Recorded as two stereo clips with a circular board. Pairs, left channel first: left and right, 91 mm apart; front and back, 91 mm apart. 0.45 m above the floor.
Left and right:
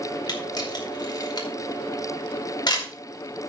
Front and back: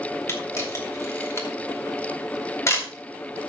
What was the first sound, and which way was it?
A camera shutter, 55° left.